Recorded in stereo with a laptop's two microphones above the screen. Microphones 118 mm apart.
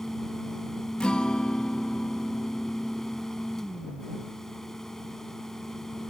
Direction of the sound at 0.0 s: 5° left (ahead or behind).